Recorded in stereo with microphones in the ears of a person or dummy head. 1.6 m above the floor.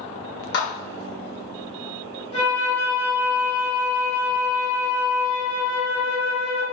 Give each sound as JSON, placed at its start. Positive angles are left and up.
{"t": 0.5, "sound": "a clap", "side_deg": 65, "distance_m": 1.3}
{"t": 2.3, "sound": "a flute", "side_deg": 75, "distance_m": 1.9}